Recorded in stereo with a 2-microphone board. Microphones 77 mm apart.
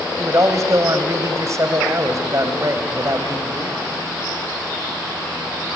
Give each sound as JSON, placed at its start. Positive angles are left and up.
{"t": 0.2, "sound": "a man speaking", "side_deg": -45, "distance_m": 2.0}